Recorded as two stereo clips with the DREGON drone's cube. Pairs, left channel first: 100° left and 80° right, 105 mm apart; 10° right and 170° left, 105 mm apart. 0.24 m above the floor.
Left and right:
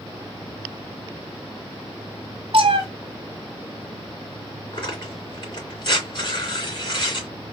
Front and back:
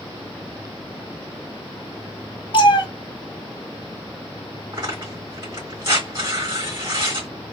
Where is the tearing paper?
130° left, 2.5 m.